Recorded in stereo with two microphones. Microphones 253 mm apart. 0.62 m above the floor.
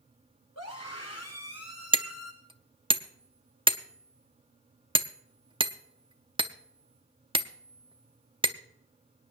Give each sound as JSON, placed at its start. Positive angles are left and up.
{"t": 0.6, "sound": "a scream", "side_deg": 80, "distance_m": 8.0}
{"t": 1.9, "sound": "hammering", "side_deg": -20, "distance_m": 0.6}